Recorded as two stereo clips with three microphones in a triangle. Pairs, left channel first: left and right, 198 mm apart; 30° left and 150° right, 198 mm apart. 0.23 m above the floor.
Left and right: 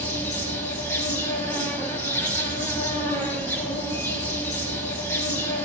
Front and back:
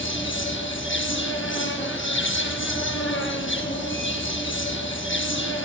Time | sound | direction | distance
0.0 | an insect | 10° left | 0.9 m